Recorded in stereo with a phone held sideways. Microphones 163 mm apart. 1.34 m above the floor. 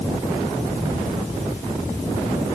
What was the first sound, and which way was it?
Only background noise.